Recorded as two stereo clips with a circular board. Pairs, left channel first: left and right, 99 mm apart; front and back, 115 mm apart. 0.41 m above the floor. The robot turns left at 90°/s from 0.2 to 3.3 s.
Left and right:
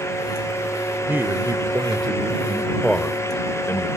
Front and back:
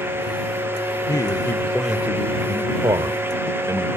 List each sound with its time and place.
1.1 s a man speaking: 25° right; by 3.9 s 135° left